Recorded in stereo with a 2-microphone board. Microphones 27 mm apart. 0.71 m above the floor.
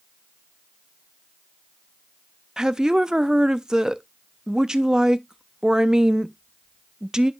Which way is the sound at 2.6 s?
25° right (ahead or behind).